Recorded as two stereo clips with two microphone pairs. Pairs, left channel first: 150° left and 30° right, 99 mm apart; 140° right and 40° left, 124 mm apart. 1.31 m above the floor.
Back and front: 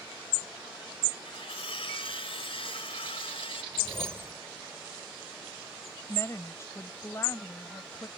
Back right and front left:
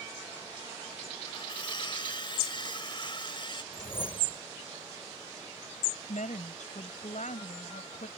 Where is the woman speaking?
150° right.